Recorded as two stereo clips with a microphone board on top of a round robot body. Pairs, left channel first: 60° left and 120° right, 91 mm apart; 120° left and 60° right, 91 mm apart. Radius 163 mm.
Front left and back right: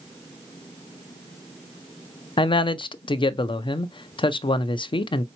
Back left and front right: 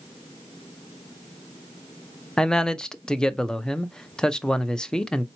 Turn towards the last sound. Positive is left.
turn(degrees=40)